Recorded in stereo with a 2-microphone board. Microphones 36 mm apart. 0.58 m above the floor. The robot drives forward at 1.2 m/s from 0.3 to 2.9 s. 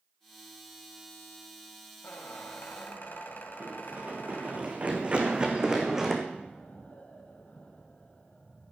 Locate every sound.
2.0 s a squeak: 80° left, 2 m; by 4.6 s 60° left (ahead or behind), 2.5 m
3.6 s running footsteps: 60° right (ahead or behind), 3 m; by 6.2 s 10° right (ahead or behind), 2.5 m
6.3 s an explosion: 50° left (ahead or behind), 5.5 m